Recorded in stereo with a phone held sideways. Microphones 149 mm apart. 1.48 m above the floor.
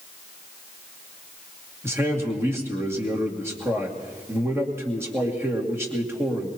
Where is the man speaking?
15° right (ahead or behind), 2 m.